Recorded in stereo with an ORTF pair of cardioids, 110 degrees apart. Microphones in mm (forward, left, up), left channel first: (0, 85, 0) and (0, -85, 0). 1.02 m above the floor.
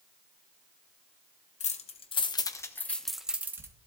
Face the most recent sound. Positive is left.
turn(degrees=-15)